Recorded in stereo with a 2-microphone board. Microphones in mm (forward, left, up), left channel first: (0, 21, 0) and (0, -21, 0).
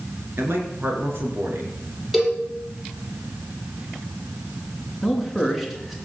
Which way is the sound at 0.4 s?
65° right (ahead or behind).